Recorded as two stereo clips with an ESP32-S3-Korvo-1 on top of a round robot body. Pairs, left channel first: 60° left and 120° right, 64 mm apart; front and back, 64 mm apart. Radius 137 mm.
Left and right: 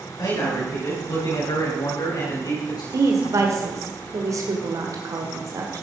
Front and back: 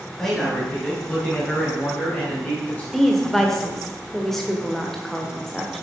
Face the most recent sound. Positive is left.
turn(degrees=-85)